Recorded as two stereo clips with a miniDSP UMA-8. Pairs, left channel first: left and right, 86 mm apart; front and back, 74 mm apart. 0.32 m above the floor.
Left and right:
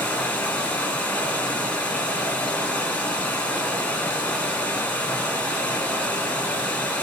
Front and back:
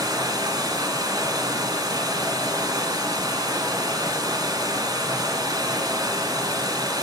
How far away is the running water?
About 1.0 m.